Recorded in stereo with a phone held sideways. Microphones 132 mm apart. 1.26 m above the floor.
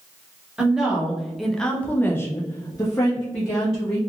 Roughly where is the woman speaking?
Centre.